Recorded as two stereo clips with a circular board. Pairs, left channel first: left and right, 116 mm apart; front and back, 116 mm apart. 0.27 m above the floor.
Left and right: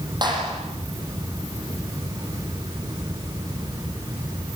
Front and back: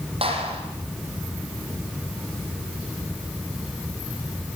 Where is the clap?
145° right, 7.5 m.